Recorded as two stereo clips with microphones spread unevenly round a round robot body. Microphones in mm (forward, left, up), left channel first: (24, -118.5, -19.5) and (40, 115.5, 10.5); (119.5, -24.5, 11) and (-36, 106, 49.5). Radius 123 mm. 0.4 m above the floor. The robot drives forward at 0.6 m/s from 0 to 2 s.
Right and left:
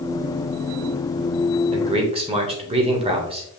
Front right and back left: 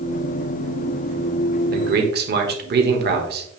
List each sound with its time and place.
1.7 s a man speaking: 145° left, 1.2 m; by 3.6 s 150° left, 1.3 m